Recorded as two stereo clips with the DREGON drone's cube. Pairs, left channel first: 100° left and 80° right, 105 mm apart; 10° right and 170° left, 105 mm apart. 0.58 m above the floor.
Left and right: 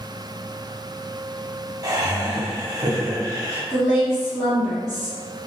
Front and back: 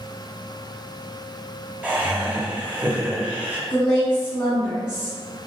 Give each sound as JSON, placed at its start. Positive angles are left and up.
{"t": 1.8, "sound": "laughter", "azimuth_deg": -120, "distance_m": 0.8}
{"t": 3.7, "sound": "a woman speaking", "azimuth_deg": -5, "distance_m": 1.3}